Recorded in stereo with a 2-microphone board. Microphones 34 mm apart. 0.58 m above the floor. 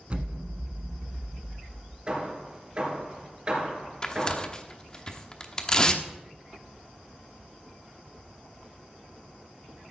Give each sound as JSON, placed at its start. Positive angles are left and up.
{"t": 0.1, "sound": "an explosion", "side_deg": -35, "distance_m": 1.1}
{"t": 2.1, "sound": "hammering", "side_deg": -30, "distance_m": 3.5}
{"t": 4.0, "sound": "tearing paper", "side_deg": 25, "distance_m": 1.0}